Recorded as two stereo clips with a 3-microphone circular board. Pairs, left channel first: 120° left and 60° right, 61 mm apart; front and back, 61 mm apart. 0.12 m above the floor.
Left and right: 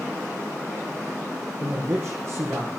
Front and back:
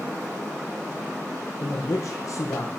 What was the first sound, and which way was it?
A man speaking, 5° right.